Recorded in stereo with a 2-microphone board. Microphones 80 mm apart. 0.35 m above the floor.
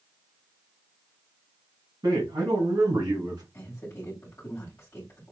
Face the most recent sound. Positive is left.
turn(degrees=30)  # may be behind; listen again after turning